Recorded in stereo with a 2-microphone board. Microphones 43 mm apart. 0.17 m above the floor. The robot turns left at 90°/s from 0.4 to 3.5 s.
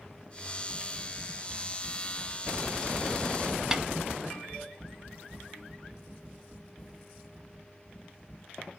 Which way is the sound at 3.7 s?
15° right (ahead or behind).